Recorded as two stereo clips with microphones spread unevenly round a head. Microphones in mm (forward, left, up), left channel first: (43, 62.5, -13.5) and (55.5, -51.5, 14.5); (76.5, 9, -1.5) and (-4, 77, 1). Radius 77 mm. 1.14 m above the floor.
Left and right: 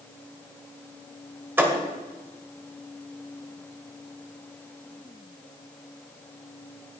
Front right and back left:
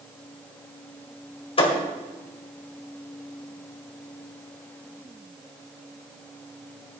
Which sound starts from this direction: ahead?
A thud, at 1.6 s.